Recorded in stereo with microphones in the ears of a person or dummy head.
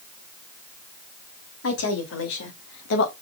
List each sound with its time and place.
1.6 s a woman speaking: 80° left, 3.5 m; by 3.1 s 70° left (ahead or behind), 2.0 m